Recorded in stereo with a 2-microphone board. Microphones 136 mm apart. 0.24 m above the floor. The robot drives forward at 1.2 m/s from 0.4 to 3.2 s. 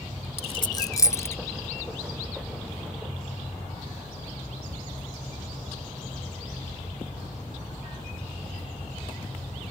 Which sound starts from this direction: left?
A dropped coin, at 0.4 s.